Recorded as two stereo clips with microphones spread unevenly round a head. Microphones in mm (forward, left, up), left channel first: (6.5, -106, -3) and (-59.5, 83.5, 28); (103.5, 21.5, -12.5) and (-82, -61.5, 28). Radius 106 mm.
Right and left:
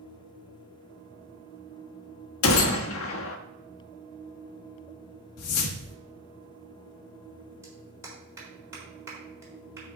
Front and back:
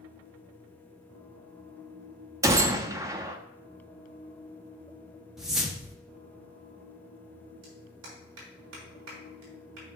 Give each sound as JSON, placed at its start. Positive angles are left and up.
{"t": 2.4, "sound": "a gunshot", "azimuth_deg": -80, "distance_m": 1.1}
{"t": 5.4, "sound": "a whoosh", "azimuth_deg": -70, "distance_m": 1.1}
{"t": 7.6, "sound": "a clap", "azimuth_deg": -175, "distance_m": 4.0}